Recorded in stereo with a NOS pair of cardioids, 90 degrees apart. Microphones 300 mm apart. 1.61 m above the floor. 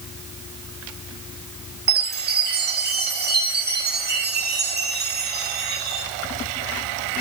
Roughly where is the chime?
Ahead right.